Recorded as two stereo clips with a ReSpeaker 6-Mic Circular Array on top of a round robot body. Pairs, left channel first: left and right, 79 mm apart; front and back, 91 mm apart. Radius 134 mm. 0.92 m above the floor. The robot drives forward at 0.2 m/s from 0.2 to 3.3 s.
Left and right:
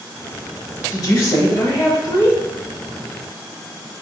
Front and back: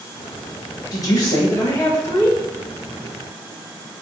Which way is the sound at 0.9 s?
50° left.